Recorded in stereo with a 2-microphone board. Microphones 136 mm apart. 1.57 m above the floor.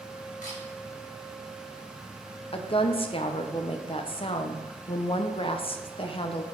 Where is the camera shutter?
80° left, 4 m.